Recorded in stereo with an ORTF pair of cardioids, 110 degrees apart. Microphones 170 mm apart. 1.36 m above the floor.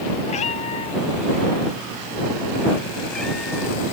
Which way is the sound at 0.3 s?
45° left.